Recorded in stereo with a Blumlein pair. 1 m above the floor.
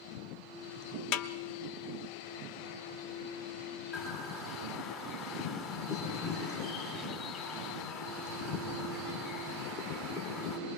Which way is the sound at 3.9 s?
35° left.